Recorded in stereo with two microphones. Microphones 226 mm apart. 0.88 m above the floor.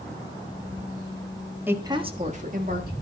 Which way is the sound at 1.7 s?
10° right (ahead or behind).